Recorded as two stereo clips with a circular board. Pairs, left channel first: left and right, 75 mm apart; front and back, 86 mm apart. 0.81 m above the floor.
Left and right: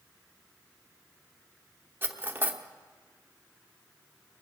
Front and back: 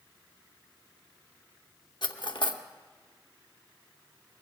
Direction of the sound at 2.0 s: 30° right.